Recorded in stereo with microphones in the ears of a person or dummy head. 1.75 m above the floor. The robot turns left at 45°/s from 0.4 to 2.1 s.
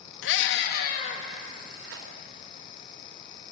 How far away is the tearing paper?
About 4 m.